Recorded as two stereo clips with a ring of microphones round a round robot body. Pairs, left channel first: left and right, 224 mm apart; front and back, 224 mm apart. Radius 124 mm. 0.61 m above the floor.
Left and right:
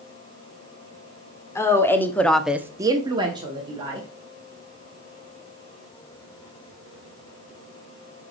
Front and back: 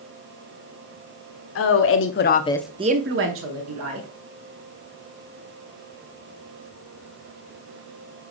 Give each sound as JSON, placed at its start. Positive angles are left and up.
{"t": 1.6, "sound": "a woman speaking", "azimuth_deg": 10, "distance_m": 1.4}